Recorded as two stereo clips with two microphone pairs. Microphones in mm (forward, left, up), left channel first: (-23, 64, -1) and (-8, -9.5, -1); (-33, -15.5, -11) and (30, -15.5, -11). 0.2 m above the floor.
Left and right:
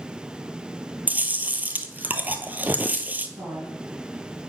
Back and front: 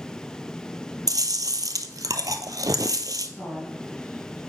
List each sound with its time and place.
1.1 s chewing: 10° right, 0.7 m
3.4 s a woman speaking: 80° right, 4 m